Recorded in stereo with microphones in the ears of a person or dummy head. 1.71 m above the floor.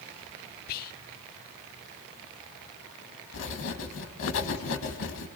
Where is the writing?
70° left (ahead or behind), 2.5 m.